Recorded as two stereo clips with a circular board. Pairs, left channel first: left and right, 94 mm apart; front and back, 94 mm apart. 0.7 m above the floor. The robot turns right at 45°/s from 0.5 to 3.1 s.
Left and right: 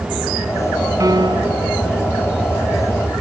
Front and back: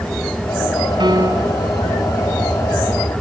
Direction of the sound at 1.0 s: 145° right.